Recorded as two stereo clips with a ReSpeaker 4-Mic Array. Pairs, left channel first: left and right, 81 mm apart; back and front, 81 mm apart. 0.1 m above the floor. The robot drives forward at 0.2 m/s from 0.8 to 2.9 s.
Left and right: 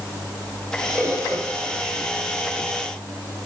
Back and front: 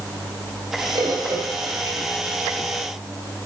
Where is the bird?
40° right, 2.5 m; by 2.0 s 45° right, 2.5 m.